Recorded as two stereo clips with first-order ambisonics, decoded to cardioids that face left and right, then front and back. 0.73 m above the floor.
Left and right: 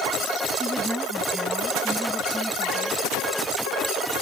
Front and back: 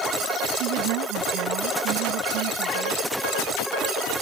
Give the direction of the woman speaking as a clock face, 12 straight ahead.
6 o'clock.